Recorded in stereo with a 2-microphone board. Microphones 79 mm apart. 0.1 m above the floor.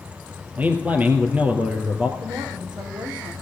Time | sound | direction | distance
0.6 | a man speaking | 20° right (ahead or behind) | 2.5 m
2.2 | a woman speaking | 65° right (ahead or behind) | 3.5 m